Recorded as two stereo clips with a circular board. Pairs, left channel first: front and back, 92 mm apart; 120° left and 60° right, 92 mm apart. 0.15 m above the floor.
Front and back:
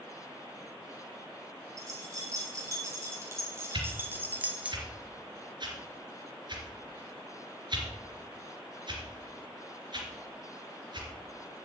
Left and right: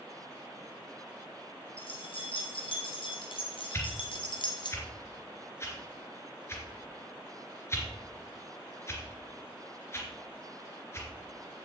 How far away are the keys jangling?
About 5 m.